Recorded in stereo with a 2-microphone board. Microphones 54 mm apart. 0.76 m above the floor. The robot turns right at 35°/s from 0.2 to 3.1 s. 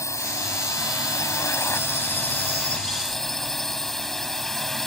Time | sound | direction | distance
0.0 | a drone | 75° left | ?